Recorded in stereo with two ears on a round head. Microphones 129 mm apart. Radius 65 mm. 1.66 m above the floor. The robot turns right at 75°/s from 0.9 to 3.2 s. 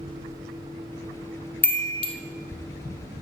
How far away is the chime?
About 0.7 m.